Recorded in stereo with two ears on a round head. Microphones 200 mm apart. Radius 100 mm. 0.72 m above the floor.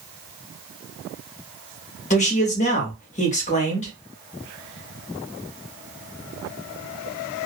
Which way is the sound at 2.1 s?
35° left (ahead or behind).